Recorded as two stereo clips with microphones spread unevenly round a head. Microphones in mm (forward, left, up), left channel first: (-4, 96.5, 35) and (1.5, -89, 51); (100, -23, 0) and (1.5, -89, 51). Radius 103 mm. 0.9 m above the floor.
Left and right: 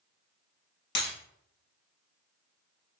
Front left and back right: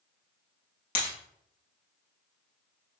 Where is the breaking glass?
60° left, 1.6 m.